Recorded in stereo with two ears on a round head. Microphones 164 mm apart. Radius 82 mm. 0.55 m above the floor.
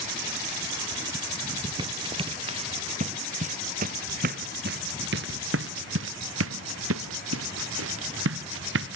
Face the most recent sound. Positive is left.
turn(degrees=-70)  # may be behind; listen again after turning